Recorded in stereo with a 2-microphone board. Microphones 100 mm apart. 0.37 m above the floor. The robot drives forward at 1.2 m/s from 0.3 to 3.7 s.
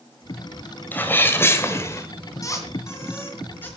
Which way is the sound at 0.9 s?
20° left (ahead or behind).